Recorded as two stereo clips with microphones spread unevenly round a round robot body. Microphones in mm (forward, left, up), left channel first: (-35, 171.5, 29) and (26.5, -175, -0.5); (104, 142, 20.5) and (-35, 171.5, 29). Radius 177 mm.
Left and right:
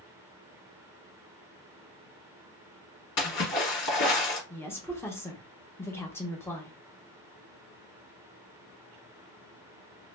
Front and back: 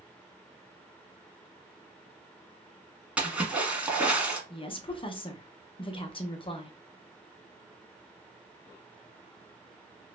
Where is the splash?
90° left, 1.5 m.